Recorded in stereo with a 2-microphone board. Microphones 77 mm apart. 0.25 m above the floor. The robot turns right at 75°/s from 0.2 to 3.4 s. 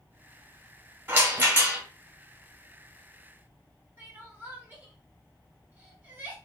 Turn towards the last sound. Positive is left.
turn(degrees=-25)  # may be behind; listen again after turning